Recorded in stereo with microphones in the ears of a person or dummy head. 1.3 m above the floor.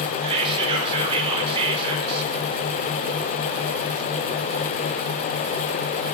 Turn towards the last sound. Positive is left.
turn(degrees=-20)  # may be behind; listen again after turning